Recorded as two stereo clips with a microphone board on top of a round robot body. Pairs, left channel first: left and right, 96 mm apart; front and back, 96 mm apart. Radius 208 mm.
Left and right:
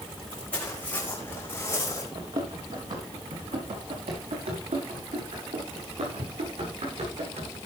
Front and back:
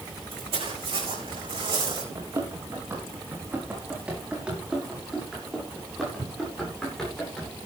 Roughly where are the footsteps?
Behind.